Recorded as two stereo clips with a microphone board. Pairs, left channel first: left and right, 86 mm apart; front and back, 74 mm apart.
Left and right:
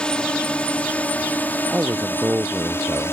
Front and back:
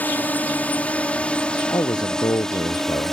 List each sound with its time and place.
0.0 s a drone: 25° left; by 3.1 s 85° left
1.7 s a man speaking: 25° right